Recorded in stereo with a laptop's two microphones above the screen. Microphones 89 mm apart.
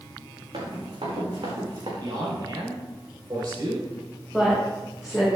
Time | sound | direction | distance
0.5 | running footsteps | 75° right (ahead or behind) | 4.5 m
2.0 | a man speaking | 50° right (ahead or behind) | 3.5 m
4.3 | a woman speaking | 5° right (ahead or behind) | 4 m